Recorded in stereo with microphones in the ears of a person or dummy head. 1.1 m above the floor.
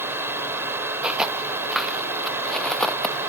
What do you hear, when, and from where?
0.0 s a fan: 15° right (ahead or behind)
1.0 s footsteps: centre (ahead or behind); by 3.2 s 15° left (ahead or behind)